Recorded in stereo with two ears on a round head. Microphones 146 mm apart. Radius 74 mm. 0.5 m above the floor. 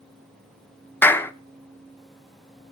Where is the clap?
10° left (ahead or behind), 0.5 m.